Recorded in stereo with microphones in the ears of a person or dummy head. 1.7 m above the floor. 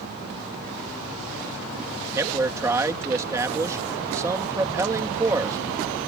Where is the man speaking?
20° right (ahead or behind).